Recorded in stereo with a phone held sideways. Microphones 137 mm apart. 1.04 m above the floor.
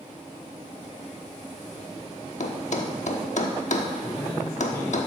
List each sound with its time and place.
2.4 s a thud: 60° left (ahead or behind), 1.1 m
4.0 s a man speaking: 20° left (ahead or behind), 4.5 m